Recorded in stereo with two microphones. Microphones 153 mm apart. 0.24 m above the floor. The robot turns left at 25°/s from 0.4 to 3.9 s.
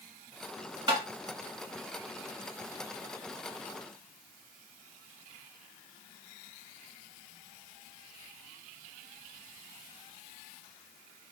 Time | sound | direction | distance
0.9 | tapping | 30° right (ahead or behind) | 1.6 m